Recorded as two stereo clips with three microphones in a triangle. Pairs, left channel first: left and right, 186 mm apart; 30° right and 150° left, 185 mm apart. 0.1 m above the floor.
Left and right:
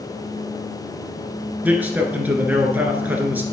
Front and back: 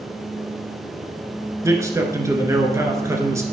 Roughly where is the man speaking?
Behind.